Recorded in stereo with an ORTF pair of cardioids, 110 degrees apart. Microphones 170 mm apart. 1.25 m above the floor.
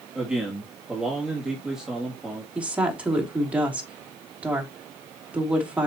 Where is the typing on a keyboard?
No typing on a keyboard in this recording.